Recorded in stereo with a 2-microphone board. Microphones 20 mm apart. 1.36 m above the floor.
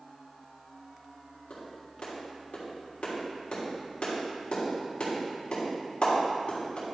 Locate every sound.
1.5 s a clap: 55° left (ahead or behind), 3 m